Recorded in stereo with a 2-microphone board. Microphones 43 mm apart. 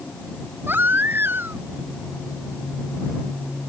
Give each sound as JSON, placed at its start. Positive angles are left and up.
{"t": 0.7, "sound": "a baby crying", "side_deg": -55}